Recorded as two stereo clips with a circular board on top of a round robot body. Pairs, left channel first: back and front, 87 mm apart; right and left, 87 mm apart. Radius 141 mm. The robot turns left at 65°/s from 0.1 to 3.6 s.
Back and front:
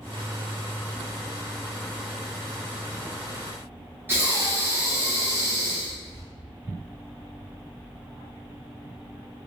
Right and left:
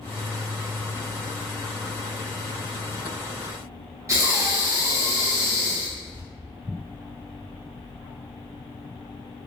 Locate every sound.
4.1 s breathing: 55° left, 1.4 m